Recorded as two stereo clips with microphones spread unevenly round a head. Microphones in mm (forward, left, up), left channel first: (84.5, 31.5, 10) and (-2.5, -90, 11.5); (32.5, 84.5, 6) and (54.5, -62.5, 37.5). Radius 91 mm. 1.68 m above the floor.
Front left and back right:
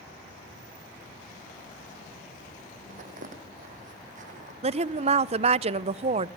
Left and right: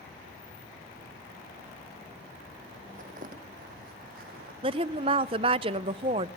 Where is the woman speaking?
105° right, 0.8 m.